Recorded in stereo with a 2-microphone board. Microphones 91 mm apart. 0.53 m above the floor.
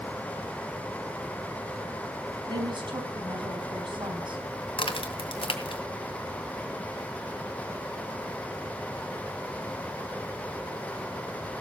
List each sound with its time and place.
2.5 s a woman speaking: 60° right (ahead or behind), 4 m
4.8 s a crack: 80° left, 2 m